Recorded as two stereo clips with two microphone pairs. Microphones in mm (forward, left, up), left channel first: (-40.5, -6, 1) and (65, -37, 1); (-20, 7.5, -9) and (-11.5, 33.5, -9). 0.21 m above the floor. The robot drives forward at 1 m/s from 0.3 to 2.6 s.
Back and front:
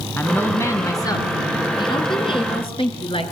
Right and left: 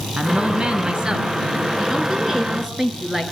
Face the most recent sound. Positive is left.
turn(degrees=140)